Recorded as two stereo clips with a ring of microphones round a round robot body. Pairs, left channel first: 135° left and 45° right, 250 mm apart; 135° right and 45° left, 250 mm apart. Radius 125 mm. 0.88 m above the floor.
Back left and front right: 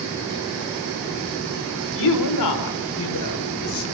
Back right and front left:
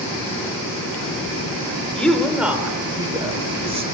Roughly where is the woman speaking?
Behind left.